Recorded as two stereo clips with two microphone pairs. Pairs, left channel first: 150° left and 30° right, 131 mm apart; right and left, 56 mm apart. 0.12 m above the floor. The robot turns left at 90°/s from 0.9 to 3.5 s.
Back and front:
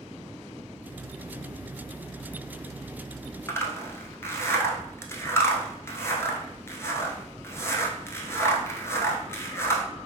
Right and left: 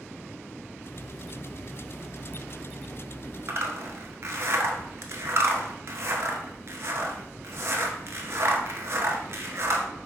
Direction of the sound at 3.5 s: 85° left.